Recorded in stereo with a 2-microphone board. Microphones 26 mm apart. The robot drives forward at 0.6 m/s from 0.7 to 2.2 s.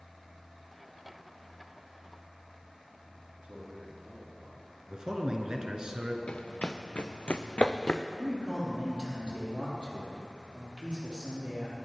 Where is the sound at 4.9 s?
35° right (ahead or behind), 1.3 m.